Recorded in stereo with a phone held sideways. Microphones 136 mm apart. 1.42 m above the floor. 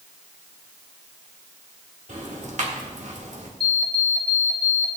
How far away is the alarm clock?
About 1.3 m.